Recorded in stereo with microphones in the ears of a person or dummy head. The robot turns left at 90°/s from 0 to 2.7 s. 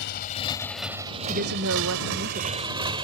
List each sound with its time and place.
0.0 s a motorcycle: 65° left (ahead or behind); by 3.1 s 30° right (ahead or behind)
1.3 s a woman speaking: 45° right; by 2.6 s 165° right